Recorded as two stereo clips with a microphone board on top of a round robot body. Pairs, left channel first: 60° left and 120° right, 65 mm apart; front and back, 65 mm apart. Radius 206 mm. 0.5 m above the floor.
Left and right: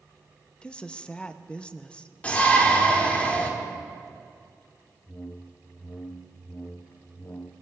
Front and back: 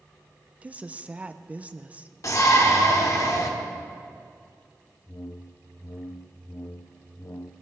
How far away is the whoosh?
About 0.6 m.